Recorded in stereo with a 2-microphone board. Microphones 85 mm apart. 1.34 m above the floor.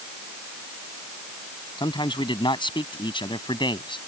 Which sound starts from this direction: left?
A man speaking, at 1.8 s.